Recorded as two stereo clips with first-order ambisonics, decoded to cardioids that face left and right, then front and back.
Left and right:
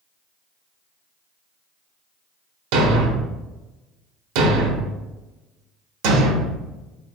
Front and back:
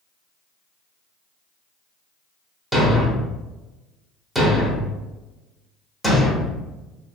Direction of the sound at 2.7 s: 90° right.